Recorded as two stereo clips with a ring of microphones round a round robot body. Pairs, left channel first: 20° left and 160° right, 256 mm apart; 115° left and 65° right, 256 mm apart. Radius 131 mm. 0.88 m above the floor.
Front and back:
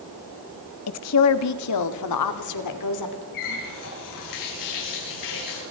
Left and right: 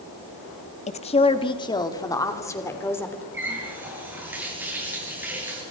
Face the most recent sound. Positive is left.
turn(degrees=15)